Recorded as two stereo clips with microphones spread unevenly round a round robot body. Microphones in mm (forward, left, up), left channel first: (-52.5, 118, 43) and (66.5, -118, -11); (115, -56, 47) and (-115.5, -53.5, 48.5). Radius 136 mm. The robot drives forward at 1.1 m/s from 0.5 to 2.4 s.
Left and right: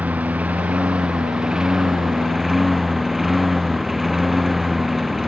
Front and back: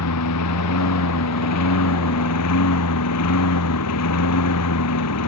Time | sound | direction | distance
0.0 | a lawn mower | 20° left | ?